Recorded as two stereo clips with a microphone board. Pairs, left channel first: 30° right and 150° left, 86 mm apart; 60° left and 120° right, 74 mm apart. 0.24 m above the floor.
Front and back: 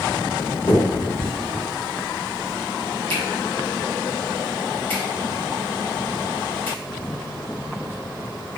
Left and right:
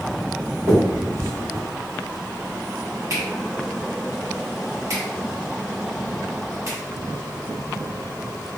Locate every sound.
0.7 s a finger snap: 90° right, 1.5 m